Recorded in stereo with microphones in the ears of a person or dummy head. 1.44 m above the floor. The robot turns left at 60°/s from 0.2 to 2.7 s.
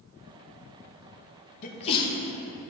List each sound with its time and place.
1.6 s a sneeze: 50° left (ahead or behind), 1.2 m; by 2.1 s 20° left (ahead or behind), 1.2 m